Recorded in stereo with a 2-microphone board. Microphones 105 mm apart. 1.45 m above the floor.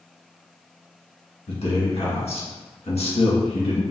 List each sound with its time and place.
1.5 s a man speaking: 75° left (ahead or behind), 1.6 m